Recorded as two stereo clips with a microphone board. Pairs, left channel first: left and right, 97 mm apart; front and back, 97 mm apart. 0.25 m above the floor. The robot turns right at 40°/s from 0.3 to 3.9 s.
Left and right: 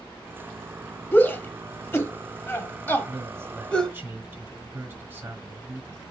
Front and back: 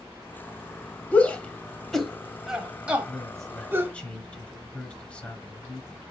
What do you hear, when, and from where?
1.1 s a shout: 50° left, 1.0 m; by 3.9 s 160° left, 1.0 m
3.1 s a man speaking: 90° right, 1.3 m; by 6.0 s 60° right, 1.3 m